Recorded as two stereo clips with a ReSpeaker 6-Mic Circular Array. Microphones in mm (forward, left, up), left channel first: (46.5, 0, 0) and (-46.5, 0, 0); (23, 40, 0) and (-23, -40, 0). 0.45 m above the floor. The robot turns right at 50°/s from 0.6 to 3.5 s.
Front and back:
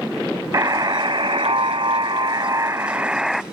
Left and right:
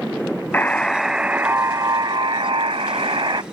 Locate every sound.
0.5 s a buzzer: 130° left; by 3.4 s 90° right